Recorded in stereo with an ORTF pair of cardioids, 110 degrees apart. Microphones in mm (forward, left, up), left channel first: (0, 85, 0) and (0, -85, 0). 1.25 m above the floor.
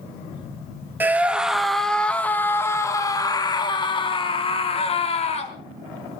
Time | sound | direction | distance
1.0 | a scream | 10° right | 2 m